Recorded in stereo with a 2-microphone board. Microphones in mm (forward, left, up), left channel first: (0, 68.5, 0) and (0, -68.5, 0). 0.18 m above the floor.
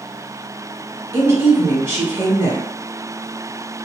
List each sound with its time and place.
1.1 s a woman speaking: 20° right (ahead or behind), 1.4 m